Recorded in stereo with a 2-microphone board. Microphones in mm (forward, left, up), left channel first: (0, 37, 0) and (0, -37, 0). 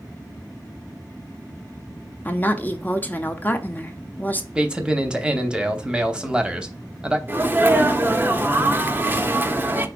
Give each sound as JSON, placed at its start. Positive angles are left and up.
{"t": 2.2, "sound": "a woman speaking", "side_deg": 25, "distance_m": 0.7}
{"t": 4.5, "sound": "a man speaking", "side_deg": -10, "distance_m": 0.9}
{"t": 7.3, "sound": "a sneeze", "side_deg": -25, "distance_m": 0.7}